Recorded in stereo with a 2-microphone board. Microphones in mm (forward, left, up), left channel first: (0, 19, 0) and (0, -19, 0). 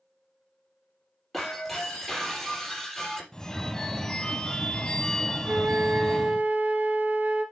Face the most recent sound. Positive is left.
turn(degrees=-60)  # may be behind; listen again after turning